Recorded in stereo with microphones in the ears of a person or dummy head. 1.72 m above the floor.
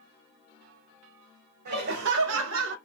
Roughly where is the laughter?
Right.